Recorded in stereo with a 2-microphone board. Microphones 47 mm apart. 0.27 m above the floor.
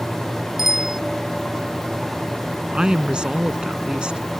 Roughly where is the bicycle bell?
Centre.